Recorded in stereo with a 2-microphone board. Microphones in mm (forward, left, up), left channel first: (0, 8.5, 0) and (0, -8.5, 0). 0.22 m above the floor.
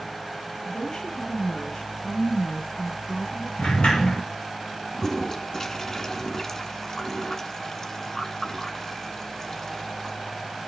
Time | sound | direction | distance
0.7 | a woman speaking | 60° left (ahead or behind) | 2.5 m
3.6 | a sliding door | 85° left | 3.5 m
4.9 | a toilet flushing | 30° left (ahead or behind) | 1.3 m